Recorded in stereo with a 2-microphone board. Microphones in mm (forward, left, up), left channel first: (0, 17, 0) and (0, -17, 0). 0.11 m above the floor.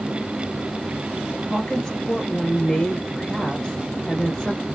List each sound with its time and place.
1.5 s a woman speaking: 15° left (ahead or behind), 1.3 m